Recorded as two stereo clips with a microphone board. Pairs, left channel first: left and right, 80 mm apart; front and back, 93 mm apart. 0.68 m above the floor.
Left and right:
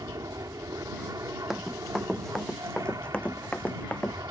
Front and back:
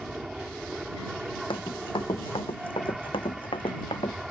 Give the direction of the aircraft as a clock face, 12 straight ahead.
3 o'clock.